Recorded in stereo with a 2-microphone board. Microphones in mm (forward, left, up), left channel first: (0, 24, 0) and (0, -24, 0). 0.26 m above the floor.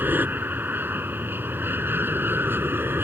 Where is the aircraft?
45° right (ahead or behind); by 3.0 s 50° right (ahead or behind).